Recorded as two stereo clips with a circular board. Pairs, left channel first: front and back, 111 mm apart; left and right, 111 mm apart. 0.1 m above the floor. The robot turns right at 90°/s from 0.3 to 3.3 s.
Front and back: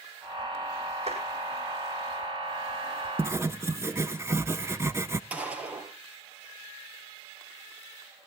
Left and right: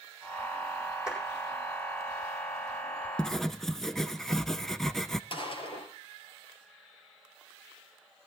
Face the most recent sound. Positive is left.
turn(degrees=105)